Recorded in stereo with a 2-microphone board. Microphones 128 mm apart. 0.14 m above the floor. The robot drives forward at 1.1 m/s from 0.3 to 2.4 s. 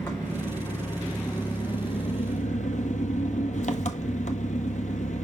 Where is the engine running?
20° left (ahead or behind), 2.5 m; by 5.2 s 70° left (ahead or behind), 0.9 m.